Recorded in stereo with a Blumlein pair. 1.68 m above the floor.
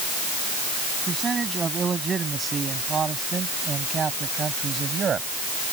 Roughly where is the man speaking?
Ahead.